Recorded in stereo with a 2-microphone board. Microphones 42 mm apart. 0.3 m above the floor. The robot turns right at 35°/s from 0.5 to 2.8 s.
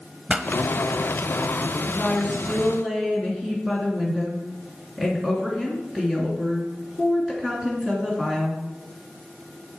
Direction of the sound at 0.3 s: 20° right (ahead or behind).